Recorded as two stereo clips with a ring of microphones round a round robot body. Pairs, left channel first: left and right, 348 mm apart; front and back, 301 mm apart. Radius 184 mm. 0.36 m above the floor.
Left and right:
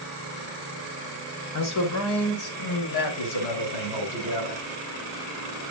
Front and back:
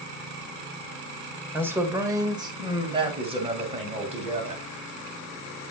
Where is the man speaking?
100° left, 1.7 m; by 4.7 s 115° left, 3.5 m.